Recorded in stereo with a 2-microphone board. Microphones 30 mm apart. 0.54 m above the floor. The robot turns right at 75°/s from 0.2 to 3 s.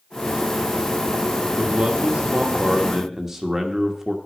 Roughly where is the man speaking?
Behind right.